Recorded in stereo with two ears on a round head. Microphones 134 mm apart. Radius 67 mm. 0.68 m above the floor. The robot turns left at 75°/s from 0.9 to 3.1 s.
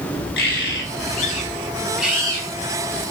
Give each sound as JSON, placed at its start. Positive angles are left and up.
{"t": 0.4, "sound": "a bird", "azimuth_deg": 80, "distance_m": 5.0}